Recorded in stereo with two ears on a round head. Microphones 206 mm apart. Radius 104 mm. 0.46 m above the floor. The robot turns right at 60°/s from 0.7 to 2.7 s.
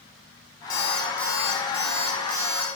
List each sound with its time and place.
0.7 s an alarm clock: 140° left, 3 m; by 2.7 s 100° right, 3 m